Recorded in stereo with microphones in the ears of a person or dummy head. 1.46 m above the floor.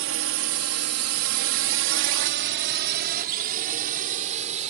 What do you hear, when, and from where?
0.0 s a drone: 60° right (ahead or behind); by 4.7 s 35° right (ahead or behind)